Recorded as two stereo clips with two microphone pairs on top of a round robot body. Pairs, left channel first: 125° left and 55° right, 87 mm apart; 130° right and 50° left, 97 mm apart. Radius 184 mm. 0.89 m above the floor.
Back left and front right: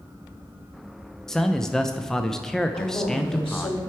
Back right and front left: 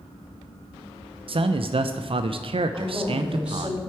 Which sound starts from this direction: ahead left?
A man speaking, at 1.3 s.